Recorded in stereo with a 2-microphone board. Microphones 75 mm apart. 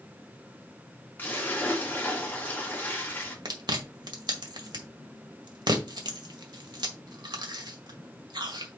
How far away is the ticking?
No ticking in this recording.